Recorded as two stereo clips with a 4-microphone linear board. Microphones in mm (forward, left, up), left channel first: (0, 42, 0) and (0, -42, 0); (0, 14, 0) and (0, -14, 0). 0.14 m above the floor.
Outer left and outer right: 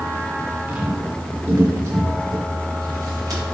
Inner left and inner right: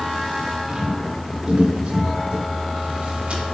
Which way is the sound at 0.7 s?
20° right (ahead or behind).